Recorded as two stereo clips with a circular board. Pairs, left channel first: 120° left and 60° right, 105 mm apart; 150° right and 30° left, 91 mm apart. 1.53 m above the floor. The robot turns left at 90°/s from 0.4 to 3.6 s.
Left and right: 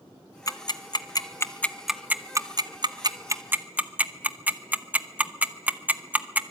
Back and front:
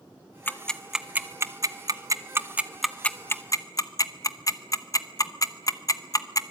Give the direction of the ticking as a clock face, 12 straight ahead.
7 o'clock.